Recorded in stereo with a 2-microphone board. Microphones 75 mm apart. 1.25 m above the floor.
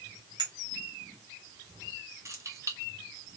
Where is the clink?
80° right, 2 m.